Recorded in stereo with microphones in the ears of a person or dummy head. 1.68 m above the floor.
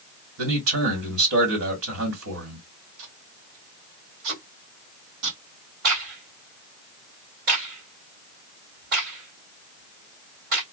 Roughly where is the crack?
Right.